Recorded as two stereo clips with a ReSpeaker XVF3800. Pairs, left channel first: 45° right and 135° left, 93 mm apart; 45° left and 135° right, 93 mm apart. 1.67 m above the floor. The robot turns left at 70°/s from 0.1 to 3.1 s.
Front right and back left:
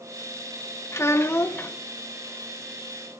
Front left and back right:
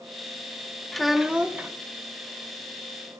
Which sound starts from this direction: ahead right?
A child speaking, at 0.9 s.